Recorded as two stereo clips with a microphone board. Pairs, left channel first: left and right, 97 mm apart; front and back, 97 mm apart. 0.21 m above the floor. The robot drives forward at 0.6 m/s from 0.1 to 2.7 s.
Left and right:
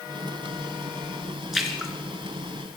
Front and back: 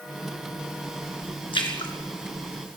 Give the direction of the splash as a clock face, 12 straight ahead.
12 o'clock.